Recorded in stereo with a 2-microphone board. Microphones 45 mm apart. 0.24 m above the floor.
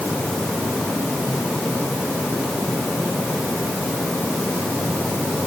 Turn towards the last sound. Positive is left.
No sound to turn to.